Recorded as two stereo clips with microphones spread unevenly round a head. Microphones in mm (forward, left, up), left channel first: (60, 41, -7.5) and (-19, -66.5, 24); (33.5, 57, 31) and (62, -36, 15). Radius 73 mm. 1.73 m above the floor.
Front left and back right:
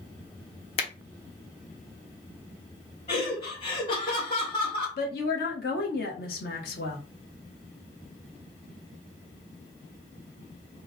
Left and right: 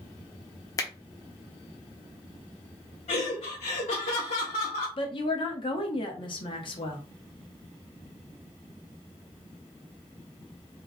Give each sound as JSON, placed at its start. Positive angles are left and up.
{"t": 0.8, "sound": "a finger snap", "azimuth_deg": 105, "distance_m": 0.9}
{"t": 3.1, "sound": "laughter", "azimuth_deg": 105, "distance_m": 1.8}
{"t": 5.0, "sound": "a woman speaking", "azimuth_deg": 85, "distance_m": 1.3}